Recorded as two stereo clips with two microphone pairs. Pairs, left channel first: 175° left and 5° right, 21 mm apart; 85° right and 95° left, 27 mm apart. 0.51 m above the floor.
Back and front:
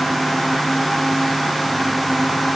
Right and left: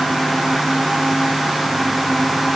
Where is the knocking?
I don't hear knocking.